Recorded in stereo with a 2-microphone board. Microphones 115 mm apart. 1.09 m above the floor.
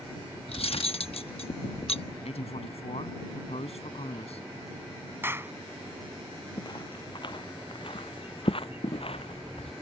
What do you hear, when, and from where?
0.5 s cutlery clinking: 65° left (ahead or behind)
2.2 s a man speaking: 75° left (ahead or behind)
5.2 s a clap: 20° right (ahead or behind)
6.6 s footsteps: 40° left (ahead or behind); by 9.7 s 65° left (ahead or behind)